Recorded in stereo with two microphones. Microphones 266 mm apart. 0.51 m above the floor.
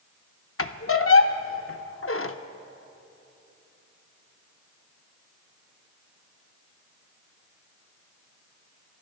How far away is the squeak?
About 0.5 m.